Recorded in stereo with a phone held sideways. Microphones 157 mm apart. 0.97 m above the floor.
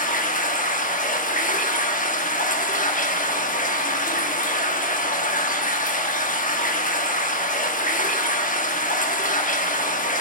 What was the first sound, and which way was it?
Running water, 55° left (ahead or behind).